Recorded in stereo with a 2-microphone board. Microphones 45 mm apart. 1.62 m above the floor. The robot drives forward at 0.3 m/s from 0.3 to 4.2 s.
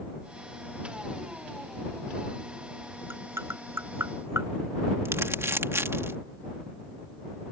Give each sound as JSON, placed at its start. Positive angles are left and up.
{"t": 3.1, "sound": "tapping", "side_deg": -70}
{"t": 5.0, "sound": "crumpling", "side_deg": -85}